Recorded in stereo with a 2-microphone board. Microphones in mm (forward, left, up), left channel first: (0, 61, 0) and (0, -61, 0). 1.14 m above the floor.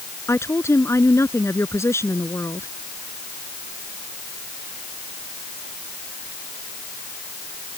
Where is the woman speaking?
20° left (ahead or behind).